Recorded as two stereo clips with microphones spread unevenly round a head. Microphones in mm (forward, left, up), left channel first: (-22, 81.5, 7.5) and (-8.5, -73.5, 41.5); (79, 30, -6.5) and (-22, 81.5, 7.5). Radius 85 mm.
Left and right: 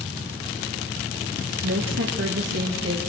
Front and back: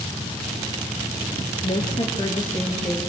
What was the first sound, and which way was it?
A woman speaking, 85° right.